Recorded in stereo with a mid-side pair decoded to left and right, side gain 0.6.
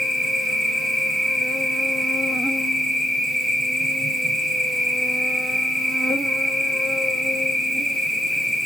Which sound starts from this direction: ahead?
An insect, at 0.0 s.